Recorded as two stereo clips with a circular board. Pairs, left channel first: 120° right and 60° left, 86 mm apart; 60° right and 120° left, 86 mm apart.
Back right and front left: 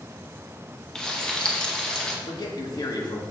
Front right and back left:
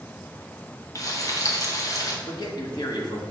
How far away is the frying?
About 0.9 m.